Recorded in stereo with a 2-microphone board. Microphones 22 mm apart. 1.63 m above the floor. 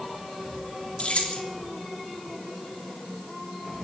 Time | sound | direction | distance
1.0 | keys jangling | 70° left (ahead or behind) | 3 m